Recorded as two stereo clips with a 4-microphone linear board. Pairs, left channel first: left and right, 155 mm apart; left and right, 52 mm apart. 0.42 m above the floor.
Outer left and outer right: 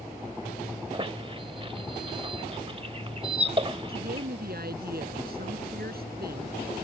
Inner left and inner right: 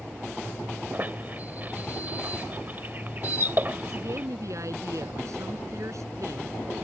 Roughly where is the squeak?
Right.